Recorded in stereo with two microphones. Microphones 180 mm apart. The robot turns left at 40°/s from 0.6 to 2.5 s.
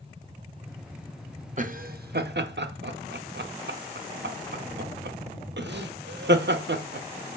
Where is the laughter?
45° right (ahead or behind), 0.6 m; by 7.4 s 85° right, 0.6 m.